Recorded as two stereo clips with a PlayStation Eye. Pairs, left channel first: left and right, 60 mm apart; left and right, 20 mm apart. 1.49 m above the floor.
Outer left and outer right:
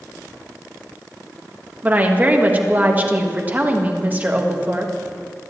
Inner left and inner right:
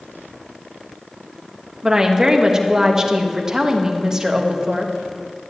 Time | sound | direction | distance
1.8 | a woman speaking | 25° right (ahead or behind) | 1.4 m